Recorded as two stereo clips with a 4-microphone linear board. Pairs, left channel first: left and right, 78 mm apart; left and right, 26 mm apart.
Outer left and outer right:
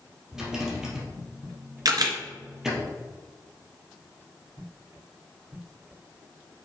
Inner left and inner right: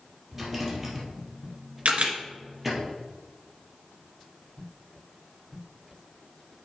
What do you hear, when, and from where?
0.3 s a rattle: 10° right (ahead or behind), 2.5 m
1.9 s a camera shutter: 60° right (ahead or behind), 1.9 m